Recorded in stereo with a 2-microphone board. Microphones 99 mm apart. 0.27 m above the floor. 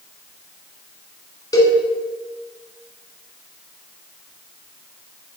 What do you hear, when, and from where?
1.5 s a cowbell: 40° left (ahead or behind), 1.3 m